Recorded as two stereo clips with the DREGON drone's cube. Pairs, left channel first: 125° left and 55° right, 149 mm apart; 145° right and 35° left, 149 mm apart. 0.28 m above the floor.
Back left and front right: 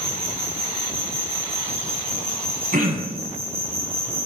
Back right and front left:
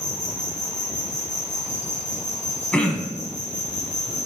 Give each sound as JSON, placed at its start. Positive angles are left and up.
{"t": 0.0, "sound": "an insect", "azimuth_deg": -125, "distance_m": 1.8}
{"t": 2.7, "sound": "throat clearing", "azimuth_deg": -65, "distance_m": 1.0}